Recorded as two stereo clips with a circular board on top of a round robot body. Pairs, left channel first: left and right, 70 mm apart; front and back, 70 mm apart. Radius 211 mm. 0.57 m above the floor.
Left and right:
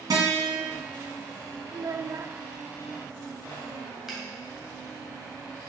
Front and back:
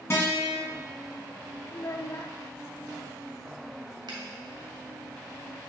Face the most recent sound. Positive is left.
turn(degrees=-175)